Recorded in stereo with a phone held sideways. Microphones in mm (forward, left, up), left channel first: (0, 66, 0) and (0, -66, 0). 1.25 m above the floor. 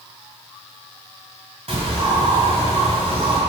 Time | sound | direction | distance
1.7 | a bird | 55° right (ahead or behind) | 1.7 m